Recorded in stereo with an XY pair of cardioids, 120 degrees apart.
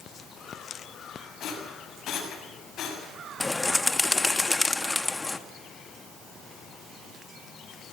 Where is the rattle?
55° left, 7 m.